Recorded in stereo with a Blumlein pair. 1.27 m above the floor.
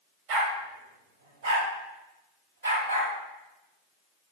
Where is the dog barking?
45° right, 2.5 m; by 3.1 s 75° right, 3.5 m.